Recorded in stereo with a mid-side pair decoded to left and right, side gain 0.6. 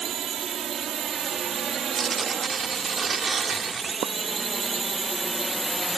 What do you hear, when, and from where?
0.0 s a drone: 45° right; by 6.0 s 5° right
1.9 s tearing paper: 30° right
4.0 s a pop: 55° right